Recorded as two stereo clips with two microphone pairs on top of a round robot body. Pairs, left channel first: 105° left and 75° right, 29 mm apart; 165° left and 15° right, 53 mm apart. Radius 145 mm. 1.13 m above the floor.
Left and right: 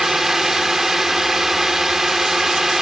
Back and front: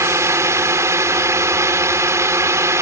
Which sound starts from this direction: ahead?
A drone, at 0.0 s.